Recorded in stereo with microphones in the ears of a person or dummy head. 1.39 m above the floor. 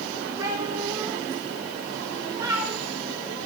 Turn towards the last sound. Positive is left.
turn(degrees=-15)  # may be behind; listen again after turning